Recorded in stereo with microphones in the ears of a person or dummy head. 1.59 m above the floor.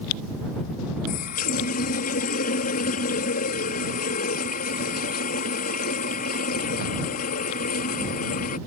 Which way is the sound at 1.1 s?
45° left (ahead or behind).